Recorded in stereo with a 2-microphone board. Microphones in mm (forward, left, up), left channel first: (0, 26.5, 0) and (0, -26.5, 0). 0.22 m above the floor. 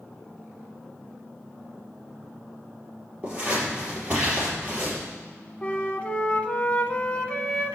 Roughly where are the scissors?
Centre.